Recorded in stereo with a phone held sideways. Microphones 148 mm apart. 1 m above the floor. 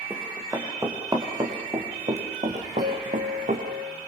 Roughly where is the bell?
Right.